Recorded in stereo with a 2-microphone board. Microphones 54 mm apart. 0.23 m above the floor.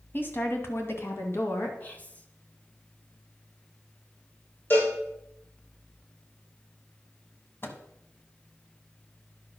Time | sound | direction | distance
0.1 | a woman speaking | 40° left (ahead or behind) | 1.7 m
1.8 | whispering | 25° left (ahead or behind) | 1.4 m
4.7 | a cowbell | 40° left (ahead or behind) | 5.5 m
7.6 | a microwave | 45° left (ahead or behind) | 1.1 m